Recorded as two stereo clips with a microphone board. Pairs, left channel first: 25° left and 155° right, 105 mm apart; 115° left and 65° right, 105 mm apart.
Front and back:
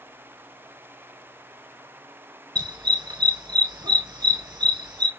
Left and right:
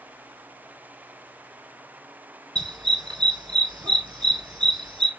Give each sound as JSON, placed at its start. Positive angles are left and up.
{"t": 2.5, "sound": "a dog barking", "azimuth_deg": -115, "distance_m": 1.4}